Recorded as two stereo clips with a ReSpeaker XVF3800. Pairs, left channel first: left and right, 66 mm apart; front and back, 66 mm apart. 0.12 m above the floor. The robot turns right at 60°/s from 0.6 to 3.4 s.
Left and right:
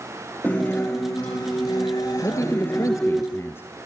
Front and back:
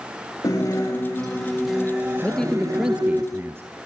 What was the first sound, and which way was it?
A guitar, 20° left.